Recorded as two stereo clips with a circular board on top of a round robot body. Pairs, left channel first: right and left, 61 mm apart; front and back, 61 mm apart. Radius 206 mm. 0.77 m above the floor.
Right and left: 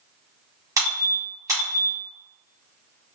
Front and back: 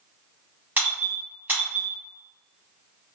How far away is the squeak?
About 0.9 m.